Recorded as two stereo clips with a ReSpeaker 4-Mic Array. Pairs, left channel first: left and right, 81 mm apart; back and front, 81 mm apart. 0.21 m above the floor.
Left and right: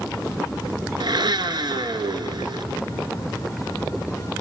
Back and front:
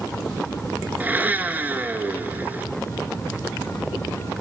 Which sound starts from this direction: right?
A blender, at 1.0 s.